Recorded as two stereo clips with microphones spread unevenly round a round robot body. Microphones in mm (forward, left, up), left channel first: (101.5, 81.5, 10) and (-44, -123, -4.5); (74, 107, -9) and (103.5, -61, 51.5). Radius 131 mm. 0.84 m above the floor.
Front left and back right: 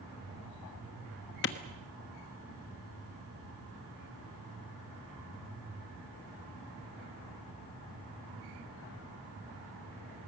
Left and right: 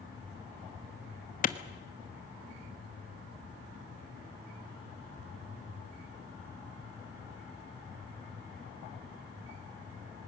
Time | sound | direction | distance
1.4 | a clap | 105° left | 1.2 m